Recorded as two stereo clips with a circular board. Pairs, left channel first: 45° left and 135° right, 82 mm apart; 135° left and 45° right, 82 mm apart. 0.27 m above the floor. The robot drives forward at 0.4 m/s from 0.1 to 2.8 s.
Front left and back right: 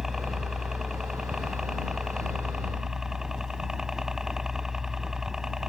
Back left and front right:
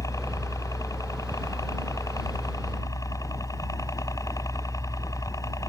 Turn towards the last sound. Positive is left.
turn(degrees=145)